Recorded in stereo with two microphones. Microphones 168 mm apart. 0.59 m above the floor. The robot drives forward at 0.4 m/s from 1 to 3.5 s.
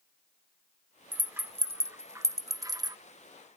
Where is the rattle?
10° right (ahead or behind); by 3.0 s 25° right (ahead or behind).